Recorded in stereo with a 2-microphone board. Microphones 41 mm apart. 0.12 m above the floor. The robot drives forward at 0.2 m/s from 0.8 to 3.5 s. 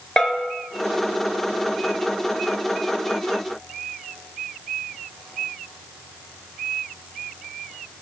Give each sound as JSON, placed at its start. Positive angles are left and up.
{"t": 0.2, "sound": "a bell", "side_deg": 20, "distance_m": 0.7}